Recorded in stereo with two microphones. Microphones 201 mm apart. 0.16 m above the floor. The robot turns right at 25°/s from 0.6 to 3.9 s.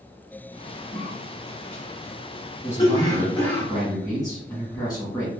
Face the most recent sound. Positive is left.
turn(degrees=20)  # may be behind; listen again after turning